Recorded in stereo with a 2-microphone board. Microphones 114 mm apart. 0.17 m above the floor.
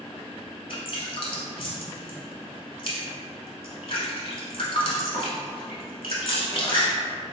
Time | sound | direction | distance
0.7 | dripping | 55° left (ahead or behind) | 0.9 m